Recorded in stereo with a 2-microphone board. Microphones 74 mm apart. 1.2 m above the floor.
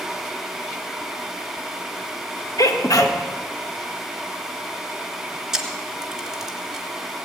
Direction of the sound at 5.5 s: 10° right (ahead or behind).